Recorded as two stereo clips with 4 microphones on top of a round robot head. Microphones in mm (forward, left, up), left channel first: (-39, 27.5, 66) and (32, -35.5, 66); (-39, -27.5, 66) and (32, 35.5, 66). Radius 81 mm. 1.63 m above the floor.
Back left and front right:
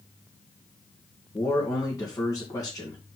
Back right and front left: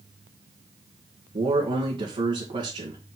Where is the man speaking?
80° left, 2.5 m.